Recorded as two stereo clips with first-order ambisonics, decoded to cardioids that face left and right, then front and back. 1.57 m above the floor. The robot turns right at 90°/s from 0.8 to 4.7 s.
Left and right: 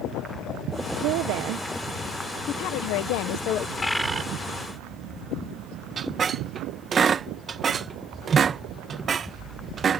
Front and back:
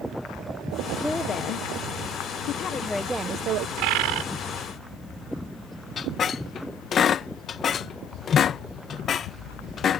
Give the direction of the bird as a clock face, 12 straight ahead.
7 o'clock.